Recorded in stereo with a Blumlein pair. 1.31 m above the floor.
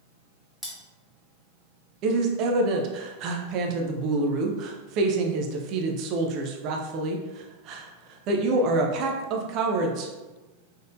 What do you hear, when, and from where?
0.6 s cutlery clinking: 5° left, 1.4 m
2.0 s a woman speaking: 40° right, 0.7 m